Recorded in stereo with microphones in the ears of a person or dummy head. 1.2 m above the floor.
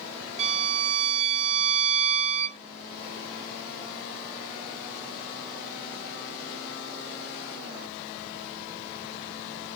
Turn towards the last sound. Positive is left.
turn(degrees=-35)  # may be behind; listen again after turning